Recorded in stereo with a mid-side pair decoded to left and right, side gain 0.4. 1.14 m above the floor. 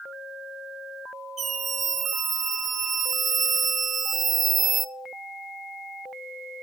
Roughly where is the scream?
Ahead right.